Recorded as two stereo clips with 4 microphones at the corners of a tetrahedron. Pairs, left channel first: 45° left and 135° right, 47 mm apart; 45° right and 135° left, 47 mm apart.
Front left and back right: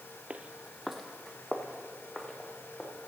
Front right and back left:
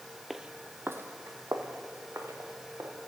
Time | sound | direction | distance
0.3 | footsteps | 145° right | 0.5 m